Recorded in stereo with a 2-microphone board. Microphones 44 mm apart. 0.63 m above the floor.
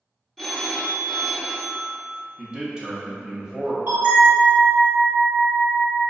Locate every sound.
0.4 s a phone ringing: centre (ahead or behind), 0.6 m
2.4 s a man speaking: 20° right (ahead or behind), 0.6 m
3.9 s a bell: 65° right (ahead or behind), 1.1 m